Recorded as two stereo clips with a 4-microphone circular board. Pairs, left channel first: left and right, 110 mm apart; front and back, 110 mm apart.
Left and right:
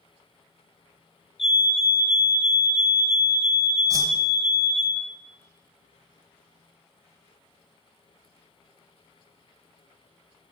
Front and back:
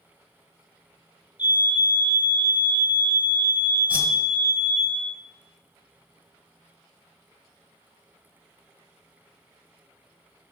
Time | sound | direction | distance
1.4 | a fire alarm | 95° left | 4 m
3.9 | a whoosh | 115° right | 1.2 m